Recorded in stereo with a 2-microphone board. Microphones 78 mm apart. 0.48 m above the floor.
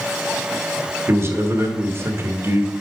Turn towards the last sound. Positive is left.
turn(degrees=-35)  # may be behind; listen again after turning